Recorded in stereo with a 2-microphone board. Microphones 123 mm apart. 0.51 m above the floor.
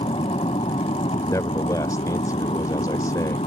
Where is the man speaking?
30° left (ahead or behind).